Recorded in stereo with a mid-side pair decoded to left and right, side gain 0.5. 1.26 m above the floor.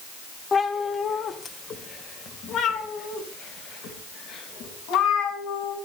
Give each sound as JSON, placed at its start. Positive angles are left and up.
{"t": 0.5, "sound": "a cat meowing", "azimuth_deg": 35, "distance_m": 2.5}